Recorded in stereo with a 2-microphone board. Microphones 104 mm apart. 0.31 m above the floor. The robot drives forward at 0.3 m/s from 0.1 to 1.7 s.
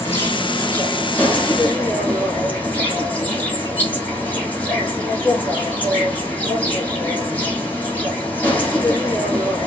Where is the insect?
25° left (ahead or behind), 1.1 m; by 9.7 s 15° left (ahead or behind), 1.6 m.